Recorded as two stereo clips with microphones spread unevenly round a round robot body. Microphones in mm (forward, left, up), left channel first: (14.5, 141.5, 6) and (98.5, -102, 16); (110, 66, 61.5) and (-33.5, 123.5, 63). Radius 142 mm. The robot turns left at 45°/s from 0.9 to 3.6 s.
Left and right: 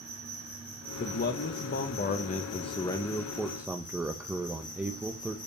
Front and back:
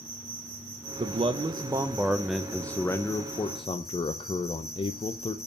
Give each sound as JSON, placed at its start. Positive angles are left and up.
{"t": 0.0, "sound": "an insect", "azimuth_deg": -170, "distance_m": 3.0}
{"t": 1.0, "sound": "a man speaking", "azimuth_deg": 130, "distance_m": 0.6}